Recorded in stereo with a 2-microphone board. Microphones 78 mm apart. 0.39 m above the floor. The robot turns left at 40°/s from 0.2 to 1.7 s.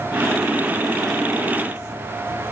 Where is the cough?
I don't hear a cough.